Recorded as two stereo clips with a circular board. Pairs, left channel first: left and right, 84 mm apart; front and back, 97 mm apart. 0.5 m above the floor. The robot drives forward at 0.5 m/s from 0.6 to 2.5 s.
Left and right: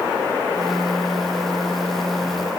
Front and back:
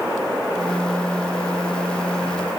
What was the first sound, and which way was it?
Only background noise.